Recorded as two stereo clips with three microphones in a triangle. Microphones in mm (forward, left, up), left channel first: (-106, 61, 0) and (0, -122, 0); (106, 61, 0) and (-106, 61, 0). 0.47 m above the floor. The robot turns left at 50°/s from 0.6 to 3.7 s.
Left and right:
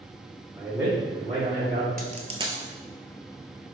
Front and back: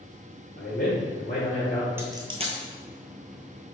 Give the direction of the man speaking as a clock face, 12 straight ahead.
12 o'clock.